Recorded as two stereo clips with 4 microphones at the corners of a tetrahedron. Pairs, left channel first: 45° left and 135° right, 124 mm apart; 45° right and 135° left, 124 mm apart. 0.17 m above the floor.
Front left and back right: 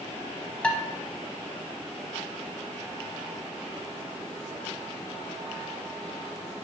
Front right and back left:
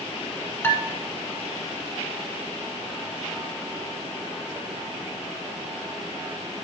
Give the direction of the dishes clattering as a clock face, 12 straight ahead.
1 o'clock.